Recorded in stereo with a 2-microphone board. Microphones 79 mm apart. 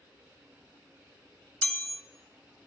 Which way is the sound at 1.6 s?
15° left (ahead or behind).